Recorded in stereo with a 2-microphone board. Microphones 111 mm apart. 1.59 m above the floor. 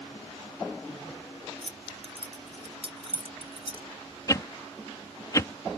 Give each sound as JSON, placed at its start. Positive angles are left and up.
{"t": 1.6, "sound": "keys jangling", "side_deg": -55}
{"t": 4.3, "sound": "a whoosh", "side_deg": 30}